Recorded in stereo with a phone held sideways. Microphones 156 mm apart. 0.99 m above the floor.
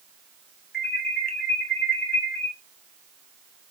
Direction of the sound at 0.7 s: 75° left (ahead or behind).